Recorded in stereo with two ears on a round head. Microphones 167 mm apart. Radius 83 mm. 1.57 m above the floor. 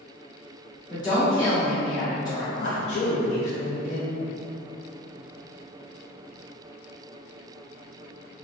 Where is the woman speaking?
25° left (ahead or behind), 1.1 m.